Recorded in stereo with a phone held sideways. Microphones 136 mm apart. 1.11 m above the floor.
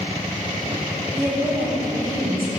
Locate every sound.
1.1 s a woman speaking: 85° right, 3.5 m